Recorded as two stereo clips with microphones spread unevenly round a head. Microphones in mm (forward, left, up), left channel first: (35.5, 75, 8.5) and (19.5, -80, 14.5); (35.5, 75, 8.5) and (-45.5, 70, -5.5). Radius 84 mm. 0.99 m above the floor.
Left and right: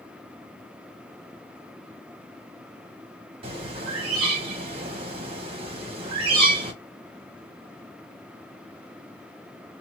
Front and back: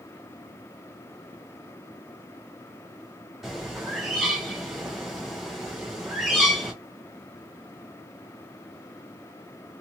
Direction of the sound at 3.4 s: 105° right.